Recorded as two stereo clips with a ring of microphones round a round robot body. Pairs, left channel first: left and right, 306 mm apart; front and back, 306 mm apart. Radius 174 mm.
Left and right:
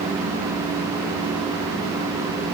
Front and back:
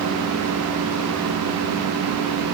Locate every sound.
Only background noise.